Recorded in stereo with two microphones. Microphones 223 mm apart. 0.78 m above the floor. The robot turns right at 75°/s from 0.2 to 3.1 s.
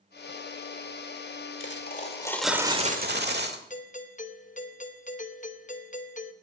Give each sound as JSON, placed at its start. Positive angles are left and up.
{"t": 1.6, "sound": "a dropped coin", "azimuth_deg": 115, "distance_m": 1.3}
{"t": 3.7, "sound": "a doorbell", "side_deg": 35, "distance_m": 0.9}